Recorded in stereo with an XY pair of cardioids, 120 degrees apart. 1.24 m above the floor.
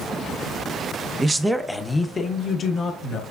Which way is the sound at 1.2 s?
25° right.